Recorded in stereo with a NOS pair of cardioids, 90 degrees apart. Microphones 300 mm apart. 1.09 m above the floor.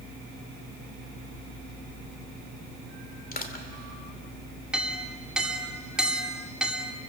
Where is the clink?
Straight ahead, 2.5 m.